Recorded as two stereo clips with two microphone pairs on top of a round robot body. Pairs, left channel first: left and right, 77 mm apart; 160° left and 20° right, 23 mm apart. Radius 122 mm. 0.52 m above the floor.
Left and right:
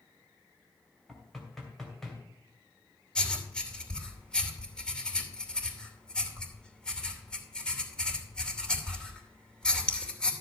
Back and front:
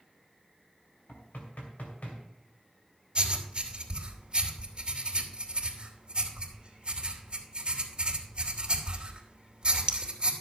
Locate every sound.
1.1 s knocking: 175° left, 2.5 m
3.1 s writing: 20° left, 2.5 m